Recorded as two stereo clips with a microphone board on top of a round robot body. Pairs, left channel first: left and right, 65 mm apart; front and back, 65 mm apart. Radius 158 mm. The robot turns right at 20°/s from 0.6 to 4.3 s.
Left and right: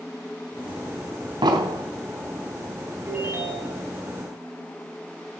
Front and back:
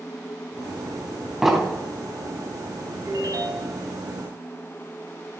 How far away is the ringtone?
About 5.5 m.